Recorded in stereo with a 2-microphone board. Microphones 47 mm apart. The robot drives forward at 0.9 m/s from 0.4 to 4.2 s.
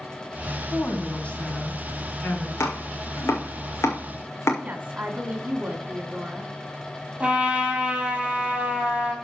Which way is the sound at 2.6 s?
70° left (ahead or behind).